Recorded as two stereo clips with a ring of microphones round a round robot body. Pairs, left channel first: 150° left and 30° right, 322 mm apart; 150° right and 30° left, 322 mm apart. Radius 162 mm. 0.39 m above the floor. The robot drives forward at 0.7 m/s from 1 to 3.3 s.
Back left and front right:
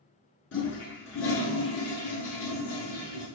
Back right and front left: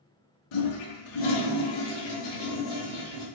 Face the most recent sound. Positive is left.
turn(degrees=-170)